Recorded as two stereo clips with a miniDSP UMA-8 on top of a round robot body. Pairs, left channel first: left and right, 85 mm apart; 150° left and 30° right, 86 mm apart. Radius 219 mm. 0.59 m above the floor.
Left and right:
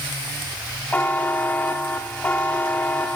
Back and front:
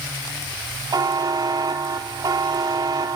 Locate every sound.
0.9 s a buzzer: 15° left, 0.7 m